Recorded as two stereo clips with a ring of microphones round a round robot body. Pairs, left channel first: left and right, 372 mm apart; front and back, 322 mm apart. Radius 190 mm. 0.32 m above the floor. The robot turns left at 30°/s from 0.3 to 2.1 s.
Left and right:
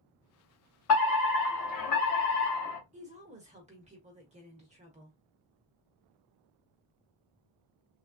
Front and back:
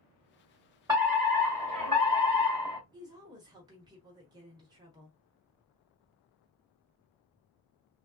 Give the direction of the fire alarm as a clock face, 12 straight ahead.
8 o'clock.